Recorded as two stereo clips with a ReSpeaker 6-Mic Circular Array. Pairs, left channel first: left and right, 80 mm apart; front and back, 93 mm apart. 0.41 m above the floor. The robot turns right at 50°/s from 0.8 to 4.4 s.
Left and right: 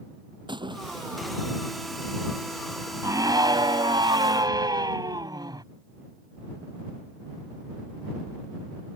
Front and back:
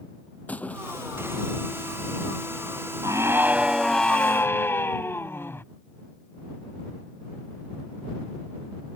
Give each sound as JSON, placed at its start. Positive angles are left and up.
{"t": 0.5, "sound": "a splash", "azimuth_deg": -75}
{"t": 3.0, "sound": "a scream", "azimuth_deg": -135}